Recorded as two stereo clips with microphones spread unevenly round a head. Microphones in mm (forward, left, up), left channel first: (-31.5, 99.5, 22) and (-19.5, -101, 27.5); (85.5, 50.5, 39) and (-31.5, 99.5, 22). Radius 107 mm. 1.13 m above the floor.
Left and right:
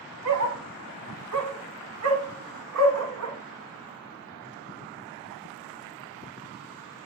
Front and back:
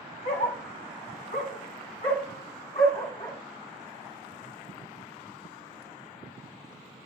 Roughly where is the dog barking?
Right.